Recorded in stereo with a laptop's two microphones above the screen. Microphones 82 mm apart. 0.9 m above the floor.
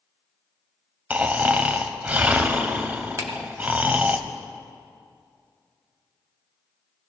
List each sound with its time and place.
1.1 s snoring: 20° right (ahead or behind), 0.8 m
3.2 s a finger snap: 40° right (ahead or behind), 1.2 m